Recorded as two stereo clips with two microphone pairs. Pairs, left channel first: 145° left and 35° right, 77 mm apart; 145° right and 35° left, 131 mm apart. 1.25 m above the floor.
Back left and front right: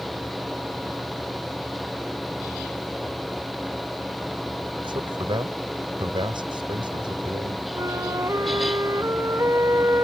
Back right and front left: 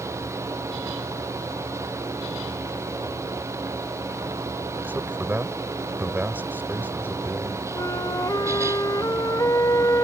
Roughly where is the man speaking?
Ahead right.